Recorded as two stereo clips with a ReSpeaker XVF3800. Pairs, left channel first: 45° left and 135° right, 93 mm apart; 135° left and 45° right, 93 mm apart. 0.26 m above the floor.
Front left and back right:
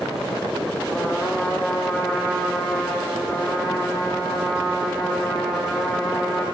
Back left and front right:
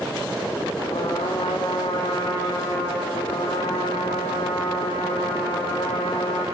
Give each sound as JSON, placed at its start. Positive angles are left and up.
{"t": 0.9, "sound": "a trumpet", "azimuth_deg": 125, "distance_m": 6.0}